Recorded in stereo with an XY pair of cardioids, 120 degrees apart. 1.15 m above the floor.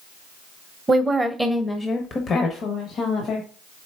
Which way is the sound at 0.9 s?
25° right.